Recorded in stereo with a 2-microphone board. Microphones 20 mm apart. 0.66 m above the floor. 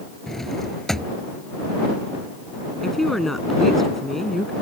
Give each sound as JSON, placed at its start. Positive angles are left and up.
{"t": 0.3, "sound": "a drawer", "side_deg": 20}
{"t": 2.8, "sound": "a woman speaking", "side_deg": 10}